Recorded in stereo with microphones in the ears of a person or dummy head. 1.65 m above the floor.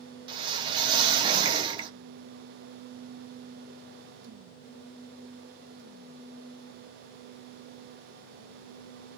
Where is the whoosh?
25° right (ahead or behind), 0.8 m.